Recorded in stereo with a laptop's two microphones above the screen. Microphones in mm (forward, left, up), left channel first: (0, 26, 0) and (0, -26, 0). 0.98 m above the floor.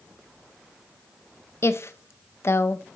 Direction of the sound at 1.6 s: 55° left (ahead or behind).